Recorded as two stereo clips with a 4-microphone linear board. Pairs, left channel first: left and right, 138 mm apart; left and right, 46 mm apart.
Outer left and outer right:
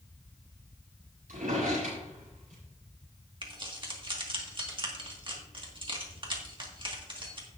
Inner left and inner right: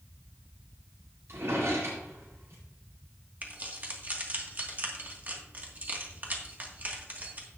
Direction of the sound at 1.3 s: 75° right (ahead or behind).